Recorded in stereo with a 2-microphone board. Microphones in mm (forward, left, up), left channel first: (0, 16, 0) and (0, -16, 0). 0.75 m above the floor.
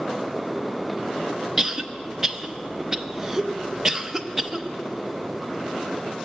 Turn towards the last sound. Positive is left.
turn(degrees=-15)  # may be behind; listen again after turning